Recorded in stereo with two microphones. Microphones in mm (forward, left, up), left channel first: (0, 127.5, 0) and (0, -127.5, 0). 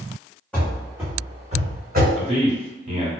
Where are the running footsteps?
5° left (ahead or behind), 1.2 m; by 2.1 s 45° right (ahead or behind), 1.3 m.